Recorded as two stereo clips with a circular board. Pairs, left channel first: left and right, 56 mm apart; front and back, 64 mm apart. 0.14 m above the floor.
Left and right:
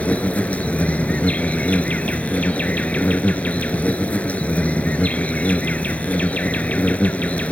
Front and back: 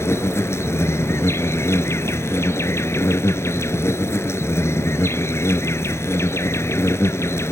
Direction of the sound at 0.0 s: 30° left.